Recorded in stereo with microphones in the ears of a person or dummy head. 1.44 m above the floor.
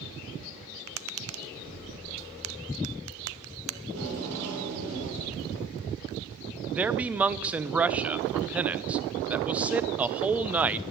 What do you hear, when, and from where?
0.9 s tapping: 85° right, 0.8 m
3.8 s tape being pulled: 85° right, 5.5 m
6.7 s a man speaking: 5° right (ahead or behind), 0.6 m